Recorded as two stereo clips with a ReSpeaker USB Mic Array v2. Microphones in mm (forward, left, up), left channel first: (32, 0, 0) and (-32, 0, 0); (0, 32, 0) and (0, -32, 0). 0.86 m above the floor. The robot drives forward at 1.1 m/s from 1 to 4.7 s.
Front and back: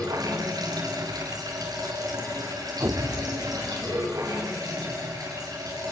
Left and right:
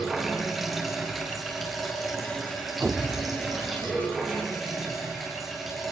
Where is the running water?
Straight behind, 5 m.